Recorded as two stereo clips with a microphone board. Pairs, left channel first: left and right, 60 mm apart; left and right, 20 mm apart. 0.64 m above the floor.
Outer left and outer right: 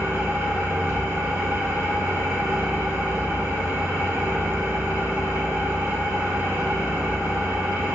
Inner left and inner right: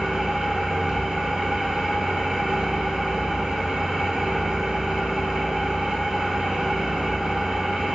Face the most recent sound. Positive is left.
turn(degrees=-40)  # may be behind; listen again after turning